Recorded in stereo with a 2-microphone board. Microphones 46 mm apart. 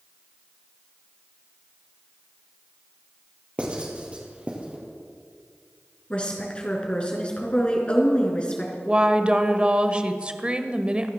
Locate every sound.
3.6 s writing: 25° right (ahead or behind), 3.5 m
6.1 s a woman speaking: 25° left (ahead or behind), 3.5 m
8.8 s a woman speaking: 20° right (ahead or behind), 1.0 m